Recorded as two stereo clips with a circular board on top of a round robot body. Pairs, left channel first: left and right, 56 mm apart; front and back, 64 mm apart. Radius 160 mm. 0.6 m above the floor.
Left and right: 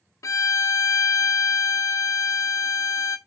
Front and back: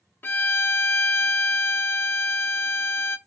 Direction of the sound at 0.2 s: 60° left.